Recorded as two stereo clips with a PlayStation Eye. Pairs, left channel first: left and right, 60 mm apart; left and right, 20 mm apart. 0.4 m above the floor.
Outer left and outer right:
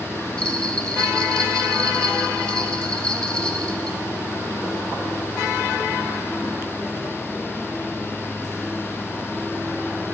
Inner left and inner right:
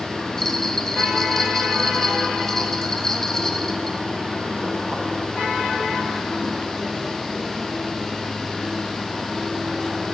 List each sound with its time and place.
0.4 s a bell: 15° left (ahead or behind), 0.9 m